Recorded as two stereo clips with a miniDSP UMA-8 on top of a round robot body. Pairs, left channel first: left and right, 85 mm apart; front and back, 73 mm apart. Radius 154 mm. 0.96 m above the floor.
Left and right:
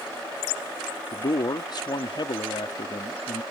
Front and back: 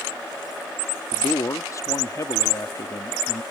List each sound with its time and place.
1.1 s a man speaking: 50° left